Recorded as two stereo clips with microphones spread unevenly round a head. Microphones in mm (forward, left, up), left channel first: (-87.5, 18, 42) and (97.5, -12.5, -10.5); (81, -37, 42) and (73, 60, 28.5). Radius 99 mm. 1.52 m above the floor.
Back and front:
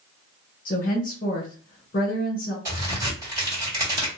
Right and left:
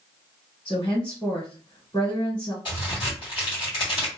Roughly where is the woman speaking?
Behind right.